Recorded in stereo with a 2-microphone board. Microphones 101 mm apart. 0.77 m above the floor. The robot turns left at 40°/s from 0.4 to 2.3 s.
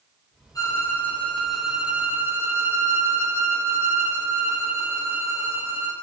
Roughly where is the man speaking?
I don't hear a man speaking.